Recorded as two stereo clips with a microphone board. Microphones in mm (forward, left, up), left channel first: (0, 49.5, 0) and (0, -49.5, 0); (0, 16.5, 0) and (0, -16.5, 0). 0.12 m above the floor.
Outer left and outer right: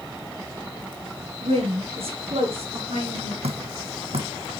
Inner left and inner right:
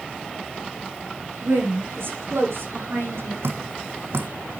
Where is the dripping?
80° right, 2 m.